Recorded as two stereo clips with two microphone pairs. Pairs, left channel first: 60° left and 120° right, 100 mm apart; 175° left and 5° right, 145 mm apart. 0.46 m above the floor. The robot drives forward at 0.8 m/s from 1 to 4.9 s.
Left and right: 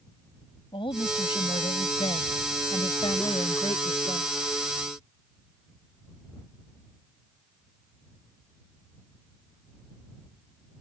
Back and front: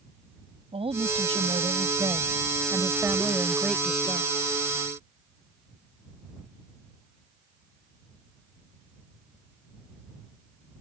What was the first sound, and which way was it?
A woman speaking, 40° left.